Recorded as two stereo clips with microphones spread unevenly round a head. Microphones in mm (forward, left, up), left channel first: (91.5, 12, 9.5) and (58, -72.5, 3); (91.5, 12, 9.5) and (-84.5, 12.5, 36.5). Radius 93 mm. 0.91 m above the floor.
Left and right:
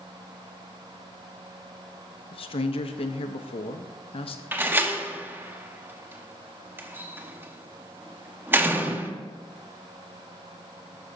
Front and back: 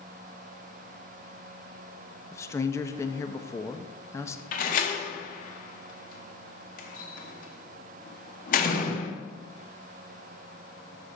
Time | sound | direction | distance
2.3 | a man speaking | 70° left | 0.7 m
4.5 | a door slam | 45° right | 1.1 m